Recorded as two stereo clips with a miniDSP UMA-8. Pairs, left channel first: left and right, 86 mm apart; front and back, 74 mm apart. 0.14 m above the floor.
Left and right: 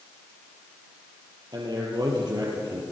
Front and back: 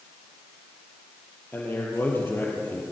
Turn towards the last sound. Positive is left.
turn(degrees=-60)